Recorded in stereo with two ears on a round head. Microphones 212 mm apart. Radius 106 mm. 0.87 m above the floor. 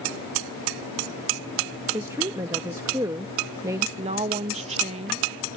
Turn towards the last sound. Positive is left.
turn(degrees=-30)  # may be behind; listen again after turning